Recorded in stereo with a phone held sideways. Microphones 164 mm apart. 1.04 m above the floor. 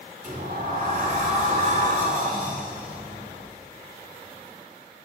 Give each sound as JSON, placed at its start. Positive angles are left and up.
{"t": 0.2, "sound": "a sliding door", "side_deg": -55, "distance_m": 2.0}